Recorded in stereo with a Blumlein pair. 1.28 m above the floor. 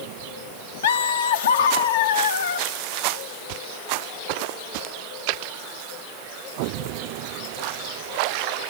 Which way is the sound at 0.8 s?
60° left.